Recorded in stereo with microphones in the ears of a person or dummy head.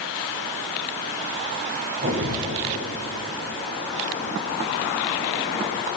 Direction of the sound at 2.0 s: 50° right (ahead or behind).